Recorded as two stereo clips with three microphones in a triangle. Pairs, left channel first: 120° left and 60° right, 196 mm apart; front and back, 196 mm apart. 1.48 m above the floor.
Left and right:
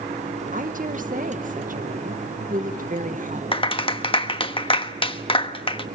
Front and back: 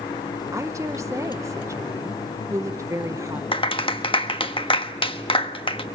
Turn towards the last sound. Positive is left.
turn(degrees=60)